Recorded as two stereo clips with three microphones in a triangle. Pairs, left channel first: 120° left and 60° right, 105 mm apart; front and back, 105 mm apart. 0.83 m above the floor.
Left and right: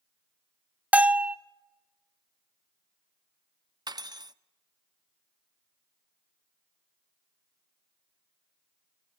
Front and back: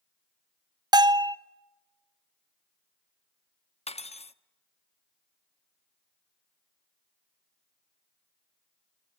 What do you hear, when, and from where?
0.9 s a bell: 135° right, 0.6 m
3.9 s cutlery clinking: 10° right, 0.6 m